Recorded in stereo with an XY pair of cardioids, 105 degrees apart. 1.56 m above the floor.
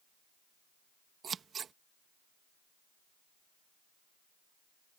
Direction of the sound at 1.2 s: 50° right.